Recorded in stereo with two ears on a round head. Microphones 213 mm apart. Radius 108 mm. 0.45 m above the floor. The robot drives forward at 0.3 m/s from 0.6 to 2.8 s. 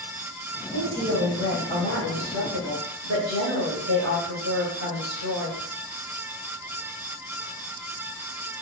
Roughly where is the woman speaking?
Right.